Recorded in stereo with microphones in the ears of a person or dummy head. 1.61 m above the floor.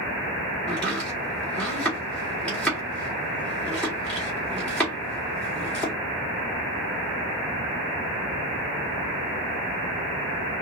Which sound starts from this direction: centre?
Chopping, at 0.7 s.